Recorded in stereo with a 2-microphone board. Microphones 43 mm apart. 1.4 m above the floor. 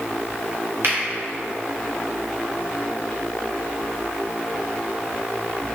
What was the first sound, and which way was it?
A finger snap, 50° right (ahead or behind).